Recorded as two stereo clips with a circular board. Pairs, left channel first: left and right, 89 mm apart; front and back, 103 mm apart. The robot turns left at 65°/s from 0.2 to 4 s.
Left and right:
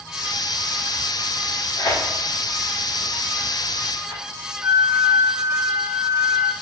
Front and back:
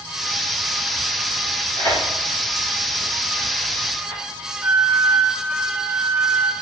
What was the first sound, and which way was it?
Tearing paper, 65° left.